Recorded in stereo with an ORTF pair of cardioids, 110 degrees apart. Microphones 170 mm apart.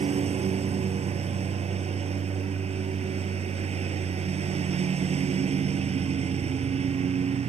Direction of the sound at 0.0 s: 35° right.